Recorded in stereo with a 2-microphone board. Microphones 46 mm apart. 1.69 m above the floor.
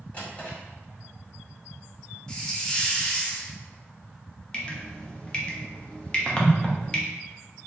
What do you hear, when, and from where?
0.1 s a drawer: 30° left (ahead or behind), 1.7 m
2.3 s a hiss: 20° left (ahead or behind), 0.5 m
4.5 s dripping: 20° left (ahead or behind), 0.6 m